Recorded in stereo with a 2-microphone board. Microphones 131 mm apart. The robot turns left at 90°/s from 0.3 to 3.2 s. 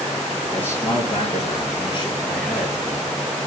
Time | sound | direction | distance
0.5 | a man speaking | 175° left | 5.5 m